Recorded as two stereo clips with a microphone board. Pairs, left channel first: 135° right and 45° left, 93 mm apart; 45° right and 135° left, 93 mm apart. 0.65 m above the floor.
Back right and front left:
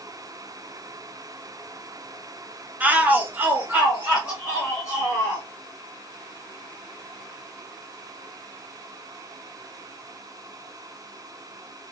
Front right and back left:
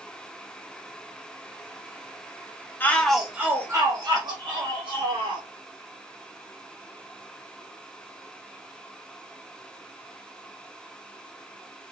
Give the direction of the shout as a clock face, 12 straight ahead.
12 o'clock.